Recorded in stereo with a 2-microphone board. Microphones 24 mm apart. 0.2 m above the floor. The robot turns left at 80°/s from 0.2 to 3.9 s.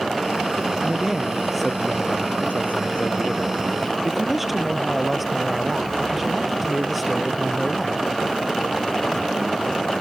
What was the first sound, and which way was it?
A man speaking, 120° right.